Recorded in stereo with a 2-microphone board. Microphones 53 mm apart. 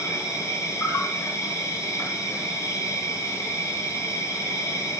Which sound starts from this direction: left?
An insect, at 0.0 s.